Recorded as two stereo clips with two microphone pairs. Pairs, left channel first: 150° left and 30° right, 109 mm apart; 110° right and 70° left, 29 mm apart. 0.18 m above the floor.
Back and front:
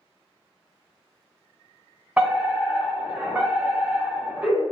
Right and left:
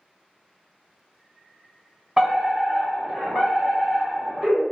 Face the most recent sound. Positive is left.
turn(degrees=5)